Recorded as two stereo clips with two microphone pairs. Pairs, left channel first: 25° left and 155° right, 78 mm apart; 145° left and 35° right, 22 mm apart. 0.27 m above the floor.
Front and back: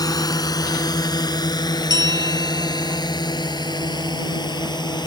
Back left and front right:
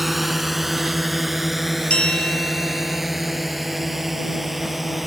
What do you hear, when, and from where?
0.0 s a drone: 50° left; by 5.1 s 45° left
1.9 s a bell: straight behind